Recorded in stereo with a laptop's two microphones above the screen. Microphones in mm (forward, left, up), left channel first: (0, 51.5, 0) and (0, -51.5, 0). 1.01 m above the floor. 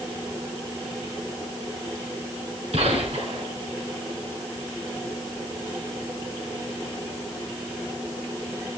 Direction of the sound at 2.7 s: 70° right (ahead or behind).